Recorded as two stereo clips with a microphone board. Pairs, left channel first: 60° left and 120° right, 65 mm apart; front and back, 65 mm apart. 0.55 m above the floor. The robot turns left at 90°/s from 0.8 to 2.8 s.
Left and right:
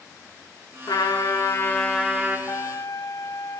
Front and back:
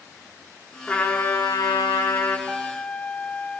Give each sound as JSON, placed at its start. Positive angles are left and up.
{"t": 0.9, "sound": "a trumpet", "azimuth_deg": 70, "distance_m": 5.5}
{"t": 2.5, "sound": "a trumpet", "azimuth_deg": 100, "distance_m": 2.5}